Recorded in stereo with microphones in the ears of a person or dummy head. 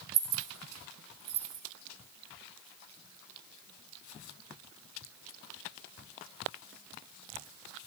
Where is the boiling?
I don't hear boiling.